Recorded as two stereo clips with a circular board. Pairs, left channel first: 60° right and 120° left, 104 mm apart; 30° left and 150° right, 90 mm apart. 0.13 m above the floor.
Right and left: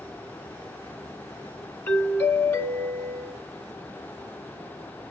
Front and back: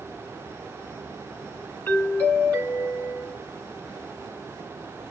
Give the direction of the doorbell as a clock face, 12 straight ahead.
12 o'clock.